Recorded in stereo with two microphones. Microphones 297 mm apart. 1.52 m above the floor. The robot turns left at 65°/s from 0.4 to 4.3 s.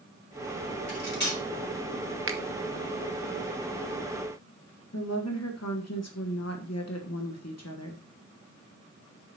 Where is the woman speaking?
60° left (ahead or behind), 1.2 m.